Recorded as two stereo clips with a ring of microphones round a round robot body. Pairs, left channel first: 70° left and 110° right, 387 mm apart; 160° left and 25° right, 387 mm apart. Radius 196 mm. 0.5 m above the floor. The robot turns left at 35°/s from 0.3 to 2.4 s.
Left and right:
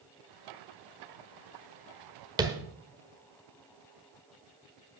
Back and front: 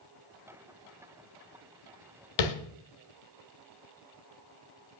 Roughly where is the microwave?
No microwave in this recording.